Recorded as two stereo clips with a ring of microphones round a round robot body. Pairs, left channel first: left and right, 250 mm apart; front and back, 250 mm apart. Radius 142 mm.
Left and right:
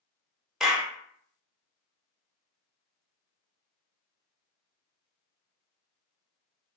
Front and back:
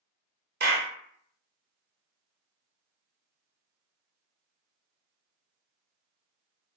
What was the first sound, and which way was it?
A clap, 175° right.